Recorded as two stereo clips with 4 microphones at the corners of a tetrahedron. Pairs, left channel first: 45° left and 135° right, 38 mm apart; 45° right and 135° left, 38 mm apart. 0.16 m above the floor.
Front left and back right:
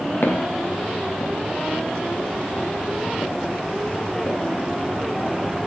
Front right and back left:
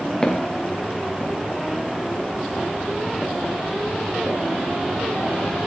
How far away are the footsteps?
About 4 m.